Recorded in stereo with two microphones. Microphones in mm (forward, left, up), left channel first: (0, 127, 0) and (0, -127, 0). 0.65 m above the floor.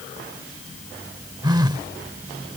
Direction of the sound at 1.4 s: 15° right (ahead or behind).